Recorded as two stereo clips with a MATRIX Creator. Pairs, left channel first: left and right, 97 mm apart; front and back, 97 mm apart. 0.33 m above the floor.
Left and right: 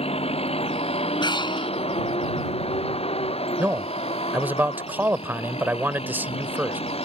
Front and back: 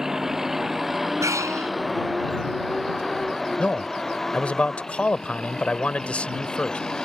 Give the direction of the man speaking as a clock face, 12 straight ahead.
2 o'clock.